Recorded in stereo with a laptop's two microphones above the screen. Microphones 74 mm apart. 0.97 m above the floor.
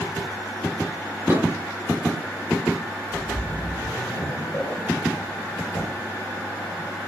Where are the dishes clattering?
30° right (ahead or behind), 0.7 m.